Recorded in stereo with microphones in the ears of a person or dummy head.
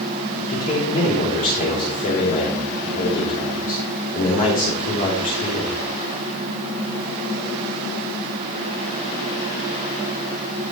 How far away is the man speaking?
About 4 m.